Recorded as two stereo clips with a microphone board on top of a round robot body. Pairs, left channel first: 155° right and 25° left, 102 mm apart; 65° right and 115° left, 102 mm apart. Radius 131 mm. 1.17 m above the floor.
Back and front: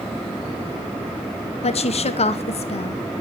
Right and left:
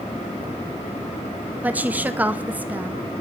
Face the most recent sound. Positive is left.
turn(degrees=-170)